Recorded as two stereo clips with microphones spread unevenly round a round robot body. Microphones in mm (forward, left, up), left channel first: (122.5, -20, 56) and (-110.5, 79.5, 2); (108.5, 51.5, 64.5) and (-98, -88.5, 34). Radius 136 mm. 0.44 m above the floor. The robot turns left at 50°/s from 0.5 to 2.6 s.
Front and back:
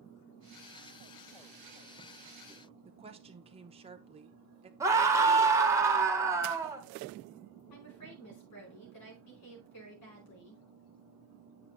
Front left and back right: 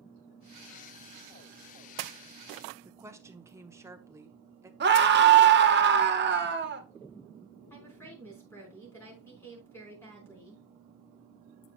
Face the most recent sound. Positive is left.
turn(degrees=-45)